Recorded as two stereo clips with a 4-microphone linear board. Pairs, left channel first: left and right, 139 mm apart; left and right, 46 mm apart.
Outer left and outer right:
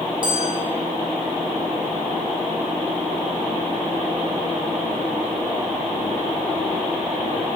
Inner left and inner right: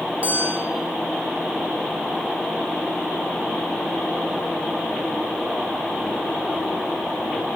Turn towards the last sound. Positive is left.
turn(degrees=-35)  # may be behind; listen again after turning